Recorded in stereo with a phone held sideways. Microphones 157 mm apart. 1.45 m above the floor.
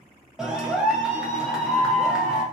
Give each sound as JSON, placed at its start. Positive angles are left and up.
{"t": 0.4, "sound": "a clap", "side_deg": -5, "distance_m": 0.8}